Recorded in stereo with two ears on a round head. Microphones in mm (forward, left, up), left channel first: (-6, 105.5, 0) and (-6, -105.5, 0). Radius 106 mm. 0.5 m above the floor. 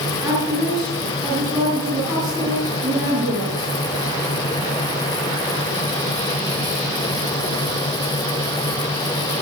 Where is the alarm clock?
I don't hear an alarm clock.